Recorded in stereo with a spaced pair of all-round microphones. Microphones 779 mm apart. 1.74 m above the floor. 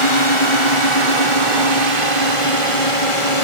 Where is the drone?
40° left (ahead or behind).